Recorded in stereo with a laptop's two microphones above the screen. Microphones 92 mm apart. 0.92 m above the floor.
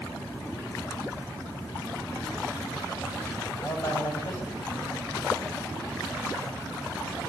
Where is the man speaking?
45° left (ahead or behind), 7 m.